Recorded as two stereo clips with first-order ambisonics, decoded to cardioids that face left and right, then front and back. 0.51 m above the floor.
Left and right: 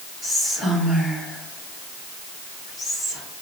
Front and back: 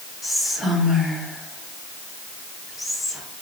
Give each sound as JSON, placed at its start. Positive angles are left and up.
{"t": 0.2, "sound": "whispering", "azimuth_deg": -70, "distance_m": 1.3}